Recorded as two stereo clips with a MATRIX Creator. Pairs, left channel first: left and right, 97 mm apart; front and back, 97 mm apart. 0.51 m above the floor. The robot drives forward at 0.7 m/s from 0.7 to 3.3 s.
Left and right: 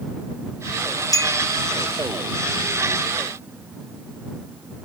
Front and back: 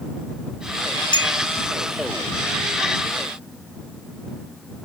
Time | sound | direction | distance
1.1 | a clink | 40° left | ?